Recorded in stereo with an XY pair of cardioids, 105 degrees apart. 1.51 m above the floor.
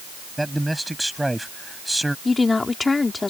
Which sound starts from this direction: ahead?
A man speaking, at 0.4 s.